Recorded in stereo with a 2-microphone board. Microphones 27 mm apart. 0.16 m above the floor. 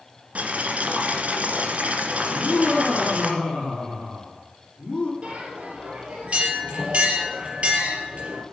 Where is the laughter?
40° left (ahead or behind), 6 m.